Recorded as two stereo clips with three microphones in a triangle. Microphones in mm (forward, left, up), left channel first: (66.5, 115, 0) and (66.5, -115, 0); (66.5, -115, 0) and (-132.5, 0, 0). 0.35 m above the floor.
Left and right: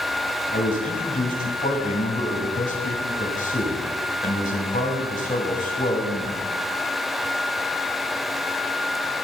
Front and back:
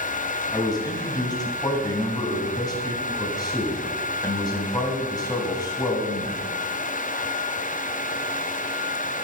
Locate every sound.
0.5 s a man speaking: 40° left, 2.5 m